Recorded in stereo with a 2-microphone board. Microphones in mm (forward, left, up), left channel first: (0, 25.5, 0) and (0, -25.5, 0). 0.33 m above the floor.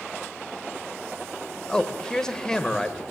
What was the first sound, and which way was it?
A man speaking, 15° left (ahead or behind).